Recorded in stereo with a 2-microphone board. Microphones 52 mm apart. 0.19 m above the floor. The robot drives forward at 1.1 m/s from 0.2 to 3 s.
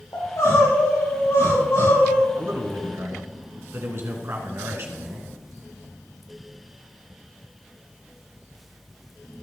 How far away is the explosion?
No explosion in this recording.